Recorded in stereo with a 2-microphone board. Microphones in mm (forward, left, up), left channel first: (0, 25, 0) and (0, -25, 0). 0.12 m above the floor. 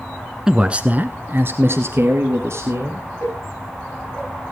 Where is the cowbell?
85° left, 4.5 m.